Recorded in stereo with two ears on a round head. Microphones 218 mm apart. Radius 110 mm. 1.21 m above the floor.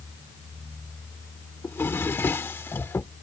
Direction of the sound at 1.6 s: 10° left (ahead or behind).